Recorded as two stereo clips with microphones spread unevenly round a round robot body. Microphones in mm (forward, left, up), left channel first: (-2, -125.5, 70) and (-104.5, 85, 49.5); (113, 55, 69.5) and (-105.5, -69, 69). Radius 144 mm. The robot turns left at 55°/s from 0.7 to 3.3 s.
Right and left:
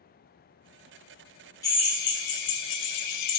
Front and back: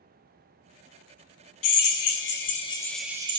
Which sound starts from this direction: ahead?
A drill, at 1.6 s.